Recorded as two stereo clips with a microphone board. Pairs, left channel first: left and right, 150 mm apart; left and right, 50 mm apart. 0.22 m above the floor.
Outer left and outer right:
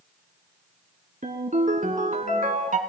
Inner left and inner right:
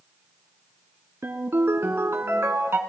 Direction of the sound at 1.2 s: 55° right (ahead or behind).